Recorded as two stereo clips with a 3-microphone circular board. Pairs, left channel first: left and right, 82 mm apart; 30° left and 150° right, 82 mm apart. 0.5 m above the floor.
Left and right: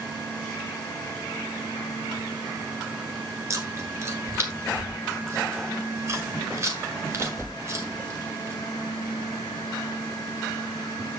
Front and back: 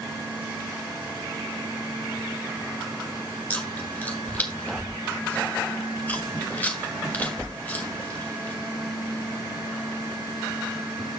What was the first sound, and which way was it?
Chewing, 40° right.